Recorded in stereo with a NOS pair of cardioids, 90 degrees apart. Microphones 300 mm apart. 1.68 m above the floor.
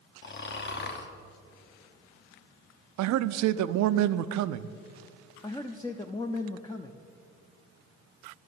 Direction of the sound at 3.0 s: 65° right.